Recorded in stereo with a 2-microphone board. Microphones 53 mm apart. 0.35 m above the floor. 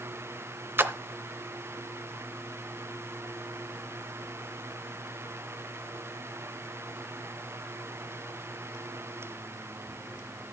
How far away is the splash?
About 0.7 m.